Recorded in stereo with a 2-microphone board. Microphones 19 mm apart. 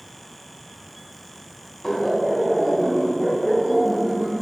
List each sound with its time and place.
1.8 s laughter: 20° left (ahead or behind), 1.1 m; by 4.4 s 60° right (ahead or behind), 2.0 m